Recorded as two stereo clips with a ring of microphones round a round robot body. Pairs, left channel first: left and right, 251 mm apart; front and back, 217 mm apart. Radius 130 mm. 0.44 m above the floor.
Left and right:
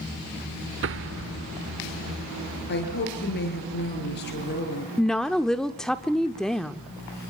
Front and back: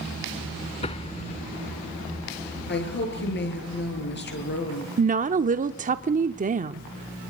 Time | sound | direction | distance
0.8 | an explosion | 60° right | 0.9 m
2.7 | a woman speaking | 40° left | 7.5 m
5.0 | a woman speaking | 175° left | 0.8 m